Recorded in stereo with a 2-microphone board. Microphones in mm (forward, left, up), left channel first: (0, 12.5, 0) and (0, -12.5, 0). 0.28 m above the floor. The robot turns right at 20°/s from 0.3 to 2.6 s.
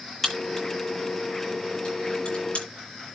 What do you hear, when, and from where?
0.2 s a crack: 5° left (ahead or behind), 8.5 m; by 2.6 s 50° left (ahead or behind), 8.5 m